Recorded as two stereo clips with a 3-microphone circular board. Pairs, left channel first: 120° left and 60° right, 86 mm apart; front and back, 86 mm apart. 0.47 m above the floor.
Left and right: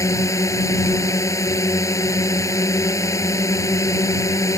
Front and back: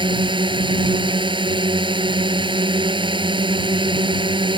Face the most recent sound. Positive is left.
turn(degrees=170)